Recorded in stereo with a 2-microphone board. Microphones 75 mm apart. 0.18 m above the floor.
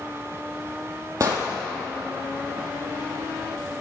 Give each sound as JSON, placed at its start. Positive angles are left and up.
{"t": 1.2, "sound": "an explosion", "side_deg": -50, "distance_m": 2.0}